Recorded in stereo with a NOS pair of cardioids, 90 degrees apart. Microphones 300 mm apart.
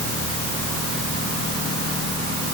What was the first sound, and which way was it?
Only background noise.